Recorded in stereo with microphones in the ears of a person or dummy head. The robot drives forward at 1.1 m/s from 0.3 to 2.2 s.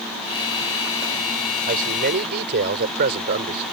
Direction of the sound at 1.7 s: 50° right (ahead or behind).